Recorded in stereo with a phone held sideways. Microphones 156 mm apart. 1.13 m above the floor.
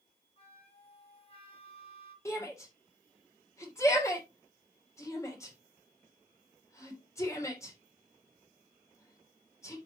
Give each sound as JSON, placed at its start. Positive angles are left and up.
{"t": 0.4, "sound": "a flute", "side_deg": 40, "distance_m": 1.6}
{"t": 2.2, "sound": "a shout", "side_deg": 20, "distance_m": 3.0}